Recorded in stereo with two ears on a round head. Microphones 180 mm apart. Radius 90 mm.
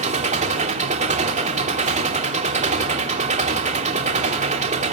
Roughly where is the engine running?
Right.